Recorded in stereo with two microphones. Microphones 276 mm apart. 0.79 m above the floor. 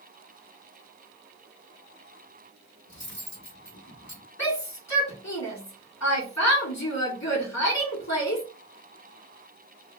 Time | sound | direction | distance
2.9 | cutlery clinking | 80° left | 1.6 m
4.4 | a shout | 75° left (ahead or behind) | 1.5 m